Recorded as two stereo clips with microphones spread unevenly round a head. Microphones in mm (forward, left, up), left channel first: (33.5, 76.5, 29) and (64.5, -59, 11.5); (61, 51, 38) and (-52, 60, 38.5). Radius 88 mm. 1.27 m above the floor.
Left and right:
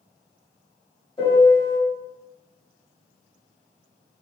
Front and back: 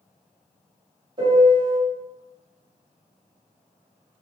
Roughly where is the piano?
Behind left.